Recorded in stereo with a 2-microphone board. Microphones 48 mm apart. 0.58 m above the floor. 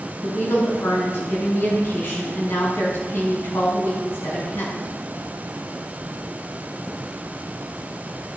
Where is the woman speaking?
60° left (ahead or behind), 5.5 m.